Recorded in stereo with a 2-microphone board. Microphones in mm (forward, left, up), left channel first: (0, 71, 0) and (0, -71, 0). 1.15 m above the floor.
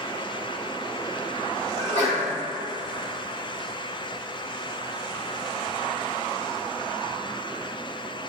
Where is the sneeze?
45° left (ahead or behind), 2.0 m.